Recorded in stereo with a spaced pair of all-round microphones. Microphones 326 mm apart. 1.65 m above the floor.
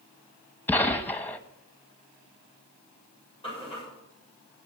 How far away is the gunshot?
About 1.0 m.